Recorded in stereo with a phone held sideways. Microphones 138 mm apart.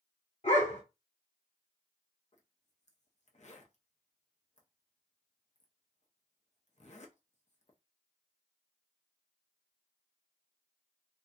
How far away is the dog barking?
About 1.1 m.